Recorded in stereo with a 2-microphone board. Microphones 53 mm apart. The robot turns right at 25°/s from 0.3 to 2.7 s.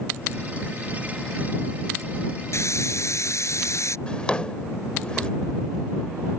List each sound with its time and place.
2.5 s a hiss: 60° left (ahead or behind); by 4.0 s 65° left (ahead or behind)
4.1 s a drawer: 20° left (ahead or behind)